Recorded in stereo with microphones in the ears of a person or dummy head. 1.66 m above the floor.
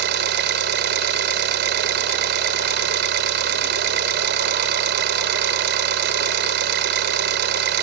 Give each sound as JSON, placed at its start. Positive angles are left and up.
{"t": 0.0, "sound": "an engine running", "side_deg": -70}